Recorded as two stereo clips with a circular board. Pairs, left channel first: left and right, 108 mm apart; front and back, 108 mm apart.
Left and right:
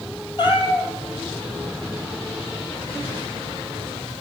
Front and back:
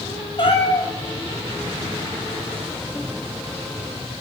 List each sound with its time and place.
0.4 s a cat meowing: 45° left, 2.5 m